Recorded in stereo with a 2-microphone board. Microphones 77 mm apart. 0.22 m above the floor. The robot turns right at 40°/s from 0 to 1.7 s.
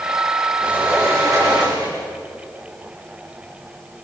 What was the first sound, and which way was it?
A sliding door, 160° right.